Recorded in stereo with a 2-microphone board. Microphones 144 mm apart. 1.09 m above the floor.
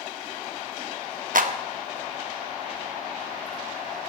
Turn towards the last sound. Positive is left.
turn(degrees=-65)  # may be behind; listen again after turning